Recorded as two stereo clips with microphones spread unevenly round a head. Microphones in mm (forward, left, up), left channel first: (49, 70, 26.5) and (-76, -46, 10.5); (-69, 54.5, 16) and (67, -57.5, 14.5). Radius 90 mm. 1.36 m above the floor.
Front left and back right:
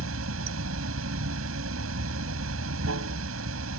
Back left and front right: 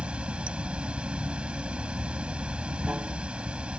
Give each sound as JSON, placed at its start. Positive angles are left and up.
{"t": 0.0, "sound": "running water", "azimuth_deg": -125}